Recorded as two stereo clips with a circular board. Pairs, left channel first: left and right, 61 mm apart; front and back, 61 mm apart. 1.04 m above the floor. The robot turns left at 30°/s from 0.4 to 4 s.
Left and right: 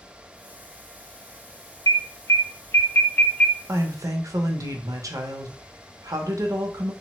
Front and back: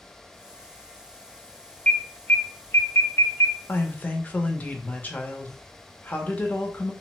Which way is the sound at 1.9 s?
70° left.